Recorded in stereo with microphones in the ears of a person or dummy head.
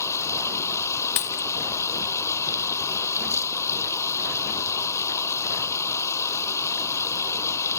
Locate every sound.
0.0 s running water: 15° left (ahead or behind)
1.2 s a dropped coin: 20° left (ahead or behind)